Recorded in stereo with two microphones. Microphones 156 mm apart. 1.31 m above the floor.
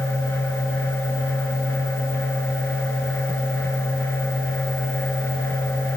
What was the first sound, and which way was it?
Only background noise.